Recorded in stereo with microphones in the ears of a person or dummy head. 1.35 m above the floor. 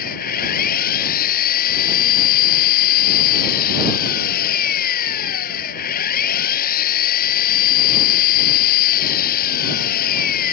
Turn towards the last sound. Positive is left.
turn(degrees=50)  # may be behind; listen again after turning